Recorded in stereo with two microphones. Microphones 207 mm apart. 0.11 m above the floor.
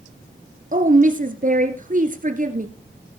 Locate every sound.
0.7 s a woman speaking: 40° right (ahead or behind), 1.6 m